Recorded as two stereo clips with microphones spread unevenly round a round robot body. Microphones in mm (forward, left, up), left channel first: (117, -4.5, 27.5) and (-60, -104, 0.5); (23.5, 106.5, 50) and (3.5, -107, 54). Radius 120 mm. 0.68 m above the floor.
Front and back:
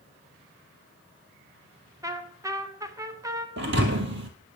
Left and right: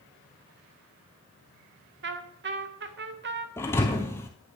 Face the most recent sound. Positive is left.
turn(degrees=165)